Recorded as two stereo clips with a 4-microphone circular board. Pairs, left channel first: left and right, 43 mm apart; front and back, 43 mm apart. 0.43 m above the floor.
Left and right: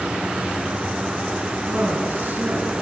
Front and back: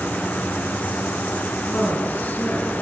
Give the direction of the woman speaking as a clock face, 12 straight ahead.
2 o'clock.